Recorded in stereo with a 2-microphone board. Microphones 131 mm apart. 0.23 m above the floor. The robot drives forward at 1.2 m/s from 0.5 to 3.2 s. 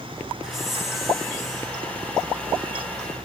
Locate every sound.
0.4 s a hiss: centre (ahead or behind), 2 m